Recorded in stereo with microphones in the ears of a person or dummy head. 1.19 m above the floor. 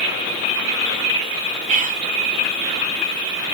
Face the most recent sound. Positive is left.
turn(degrees=-40)  # may be behind; listen again after turning